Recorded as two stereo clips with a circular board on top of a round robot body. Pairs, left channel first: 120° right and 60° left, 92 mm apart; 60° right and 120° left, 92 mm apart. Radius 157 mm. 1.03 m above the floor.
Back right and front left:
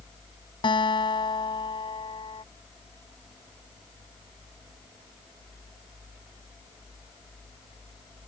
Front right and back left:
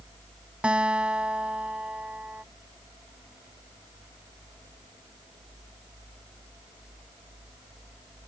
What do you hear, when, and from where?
0.6 s a guitar: 160° right